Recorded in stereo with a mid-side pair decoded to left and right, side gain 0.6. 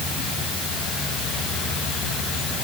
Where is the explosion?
I don't hear an explosion.